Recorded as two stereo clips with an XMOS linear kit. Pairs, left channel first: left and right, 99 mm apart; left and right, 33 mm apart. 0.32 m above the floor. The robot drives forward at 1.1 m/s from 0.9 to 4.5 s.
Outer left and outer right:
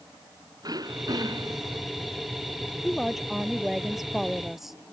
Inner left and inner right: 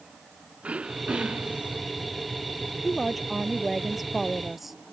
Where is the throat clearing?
40° right (ahead or behind).